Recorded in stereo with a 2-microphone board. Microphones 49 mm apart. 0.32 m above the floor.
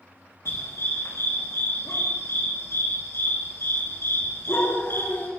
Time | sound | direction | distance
0.5 | a dog barking | 85° left | 8 m